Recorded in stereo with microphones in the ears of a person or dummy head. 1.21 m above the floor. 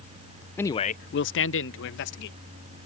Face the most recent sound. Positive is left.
turn(degrees=65)  # may be behind; listen again after turning